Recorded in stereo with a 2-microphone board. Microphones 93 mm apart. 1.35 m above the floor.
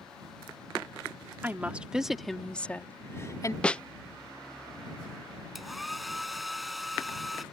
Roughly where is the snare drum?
Centre.